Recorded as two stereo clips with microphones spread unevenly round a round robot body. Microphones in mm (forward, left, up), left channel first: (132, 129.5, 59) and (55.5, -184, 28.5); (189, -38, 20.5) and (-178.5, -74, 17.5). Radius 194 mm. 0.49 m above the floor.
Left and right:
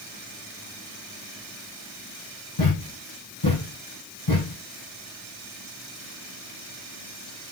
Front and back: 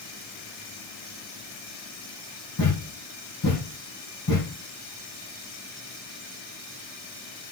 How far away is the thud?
About 5 m.